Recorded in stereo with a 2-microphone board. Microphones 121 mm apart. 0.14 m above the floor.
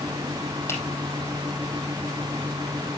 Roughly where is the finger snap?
Left.